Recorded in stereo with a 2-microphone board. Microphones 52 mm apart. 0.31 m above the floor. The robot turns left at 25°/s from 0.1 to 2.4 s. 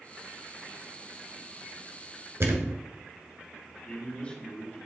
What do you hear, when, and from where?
2.4 s a thud: 70° right (ahead or behind), 1.4 m
3.9 s a man speaking: 25° left (ahead or behind), 2.5 m